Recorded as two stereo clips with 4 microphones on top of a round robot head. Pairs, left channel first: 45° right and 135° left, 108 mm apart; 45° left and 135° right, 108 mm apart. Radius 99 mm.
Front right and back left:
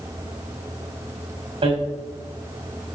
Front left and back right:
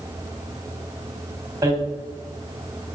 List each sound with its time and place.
1.6 s hammering: 165° left, 2.5 m